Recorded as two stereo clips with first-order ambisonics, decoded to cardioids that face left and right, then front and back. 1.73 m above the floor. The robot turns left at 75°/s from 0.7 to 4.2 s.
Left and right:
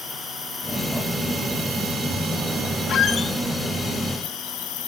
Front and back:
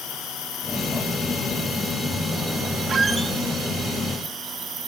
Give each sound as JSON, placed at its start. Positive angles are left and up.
{"t": 0.0, "sound": "an insect", "azimuth_deg": 20, "distance_m": 3.0}
{"t": 2.9, "sound": "a squeak", "azimuth_deg": 120, "distance_m": 0.8}